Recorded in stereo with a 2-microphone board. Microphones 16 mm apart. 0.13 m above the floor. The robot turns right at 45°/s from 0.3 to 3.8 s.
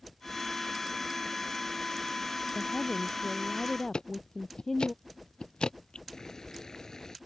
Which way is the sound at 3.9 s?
85° left.